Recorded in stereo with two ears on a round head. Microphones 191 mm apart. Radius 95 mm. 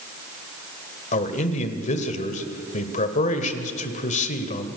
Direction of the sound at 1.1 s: 35° left (ahead or behind).